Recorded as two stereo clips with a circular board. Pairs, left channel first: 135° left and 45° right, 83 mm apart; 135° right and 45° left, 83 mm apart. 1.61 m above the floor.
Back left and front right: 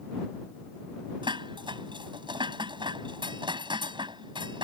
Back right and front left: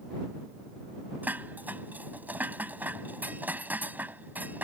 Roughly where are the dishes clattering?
Ahead right.